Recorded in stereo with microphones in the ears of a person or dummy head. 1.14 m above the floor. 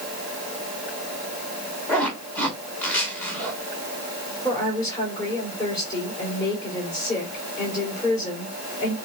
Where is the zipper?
15° left (ahead or behind), 2.5 m.